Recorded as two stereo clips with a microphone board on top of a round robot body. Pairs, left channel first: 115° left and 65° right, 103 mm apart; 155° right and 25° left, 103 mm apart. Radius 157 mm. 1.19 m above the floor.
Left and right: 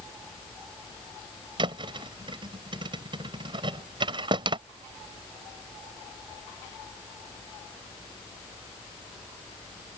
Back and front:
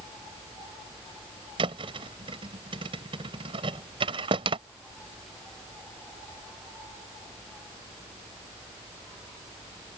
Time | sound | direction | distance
1.6 | a thud | 20° right | ?